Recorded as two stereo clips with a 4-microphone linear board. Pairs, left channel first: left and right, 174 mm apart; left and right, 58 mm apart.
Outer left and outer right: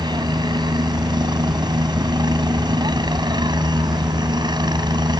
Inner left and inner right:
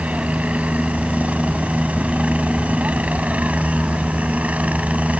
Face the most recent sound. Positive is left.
turn(degrees=-25)  # may be behind; listen again after turning